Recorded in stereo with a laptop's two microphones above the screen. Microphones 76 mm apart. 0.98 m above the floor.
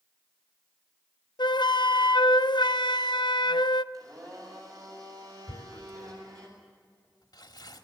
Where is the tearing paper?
55° left (ahead or behind), 2 m.